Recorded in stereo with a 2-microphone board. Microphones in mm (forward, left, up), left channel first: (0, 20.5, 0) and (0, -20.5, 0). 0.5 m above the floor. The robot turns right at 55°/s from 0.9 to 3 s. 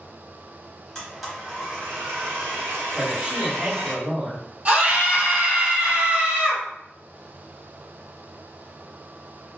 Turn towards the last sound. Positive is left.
turn(degrees=-40)  # may be behind; listen again after turning